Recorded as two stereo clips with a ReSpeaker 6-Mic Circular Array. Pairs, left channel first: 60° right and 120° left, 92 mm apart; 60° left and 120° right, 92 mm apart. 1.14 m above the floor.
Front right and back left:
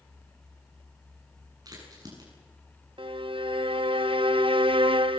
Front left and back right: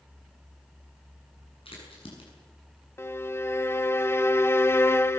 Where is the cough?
No cough in this recording.